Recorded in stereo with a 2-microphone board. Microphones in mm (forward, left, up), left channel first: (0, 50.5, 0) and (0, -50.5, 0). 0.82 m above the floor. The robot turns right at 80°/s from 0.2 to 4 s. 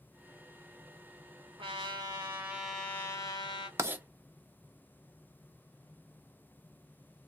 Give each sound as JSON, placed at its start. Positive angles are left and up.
{"t": 1.6, "sound": "a trumpet", "azimuth_deg": -85, "distance_m": 2.0}
{"t": 3.8, "sound": "writing", "side_deg": -30, "distance_m": 0.6}